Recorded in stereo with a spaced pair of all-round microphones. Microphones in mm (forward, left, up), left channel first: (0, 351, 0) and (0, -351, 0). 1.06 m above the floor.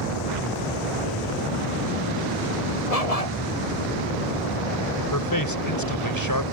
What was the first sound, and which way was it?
A dog barking, 55° left (ahead or behind).